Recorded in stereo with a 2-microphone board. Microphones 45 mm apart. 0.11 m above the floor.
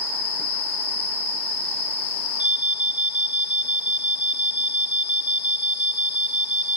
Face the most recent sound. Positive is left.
turn(degrees=-30)  # may be behind; listen again after turning